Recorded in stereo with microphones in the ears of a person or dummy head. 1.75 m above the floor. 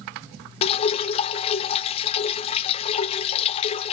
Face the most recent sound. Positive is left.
turn(degrees=35)  # may be behind; listen again after turning